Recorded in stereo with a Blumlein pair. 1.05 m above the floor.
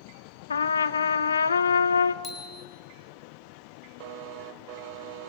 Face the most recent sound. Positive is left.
turn(degrees=20)